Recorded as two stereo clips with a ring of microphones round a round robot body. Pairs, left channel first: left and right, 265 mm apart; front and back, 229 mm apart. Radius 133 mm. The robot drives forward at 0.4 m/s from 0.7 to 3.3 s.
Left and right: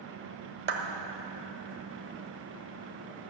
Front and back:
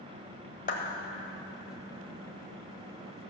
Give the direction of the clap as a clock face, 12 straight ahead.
2 o'clock.